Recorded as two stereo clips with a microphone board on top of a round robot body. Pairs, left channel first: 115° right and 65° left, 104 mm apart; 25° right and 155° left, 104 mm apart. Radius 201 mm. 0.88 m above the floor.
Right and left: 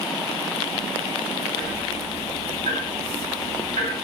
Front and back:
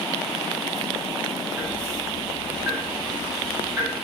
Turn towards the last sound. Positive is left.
turn(degrees=90)